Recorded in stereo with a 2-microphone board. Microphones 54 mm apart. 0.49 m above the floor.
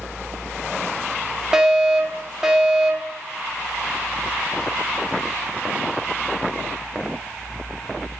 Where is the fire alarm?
10° right (ahead or behind), 1.7 m.